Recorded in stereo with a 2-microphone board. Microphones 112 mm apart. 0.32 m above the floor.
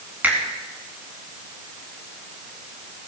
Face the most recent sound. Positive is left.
turn(degrees=-15)  # may be behind; listen again after turning